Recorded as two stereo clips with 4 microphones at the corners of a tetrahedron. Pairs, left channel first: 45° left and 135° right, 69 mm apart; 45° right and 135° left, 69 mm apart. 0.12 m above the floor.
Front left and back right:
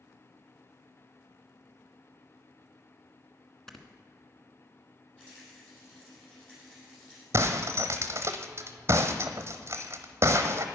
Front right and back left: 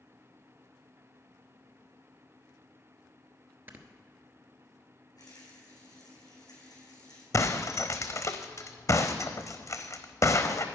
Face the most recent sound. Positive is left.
turn(degrees=-85)